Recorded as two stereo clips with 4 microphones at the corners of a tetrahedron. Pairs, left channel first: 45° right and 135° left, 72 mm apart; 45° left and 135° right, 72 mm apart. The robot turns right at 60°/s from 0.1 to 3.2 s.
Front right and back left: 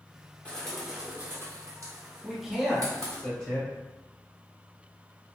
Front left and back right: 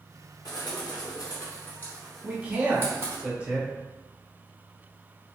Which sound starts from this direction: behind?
A man speaking, at 2.2 s.